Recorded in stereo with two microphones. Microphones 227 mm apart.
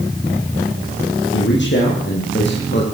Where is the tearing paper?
I don't hear tearing paper.